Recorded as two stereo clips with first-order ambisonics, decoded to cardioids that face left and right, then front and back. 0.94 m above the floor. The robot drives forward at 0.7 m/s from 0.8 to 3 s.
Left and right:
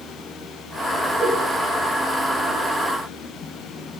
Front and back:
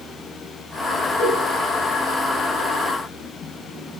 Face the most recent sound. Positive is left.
turn(degrees=10)